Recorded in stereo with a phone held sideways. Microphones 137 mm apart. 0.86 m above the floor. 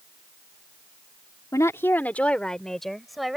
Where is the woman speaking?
25° left (ahead or behind); by 3.4 s centre (ahead or behind).